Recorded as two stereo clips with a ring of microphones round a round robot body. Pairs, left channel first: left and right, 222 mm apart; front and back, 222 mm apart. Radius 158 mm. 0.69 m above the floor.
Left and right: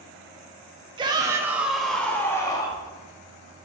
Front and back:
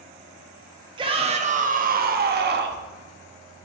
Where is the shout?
135° right, 1.1 m; by 2.8 s 160° left, 1.4 m.